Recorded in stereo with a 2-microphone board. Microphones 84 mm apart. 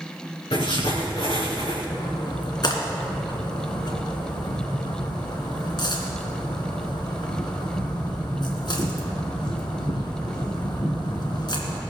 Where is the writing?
80° left, 4 m.